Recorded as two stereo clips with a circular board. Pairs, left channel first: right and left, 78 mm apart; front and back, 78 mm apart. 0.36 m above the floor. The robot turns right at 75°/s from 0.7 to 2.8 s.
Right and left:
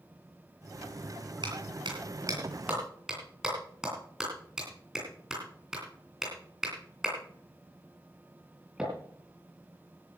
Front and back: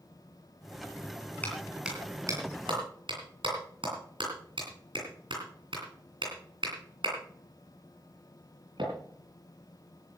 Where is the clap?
70° left, 8 m; by 8.9 s 175° left, 8 m.